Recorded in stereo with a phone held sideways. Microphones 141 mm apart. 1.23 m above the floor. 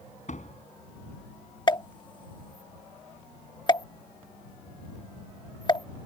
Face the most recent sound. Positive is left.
turn(degrees=35)  # may be behind; listen again after turning